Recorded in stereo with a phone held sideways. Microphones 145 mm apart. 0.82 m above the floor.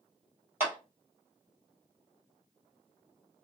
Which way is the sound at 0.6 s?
15° right (ahead or behind).